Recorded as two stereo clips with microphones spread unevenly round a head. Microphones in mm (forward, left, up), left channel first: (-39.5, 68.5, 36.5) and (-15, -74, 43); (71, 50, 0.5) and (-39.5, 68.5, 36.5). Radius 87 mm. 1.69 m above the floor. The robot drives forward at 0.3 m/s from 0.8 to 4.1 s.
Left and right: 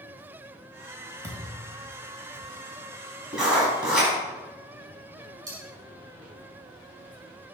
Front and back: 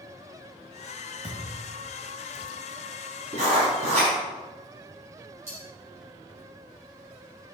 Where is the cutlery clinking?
140° right, 4.5 m.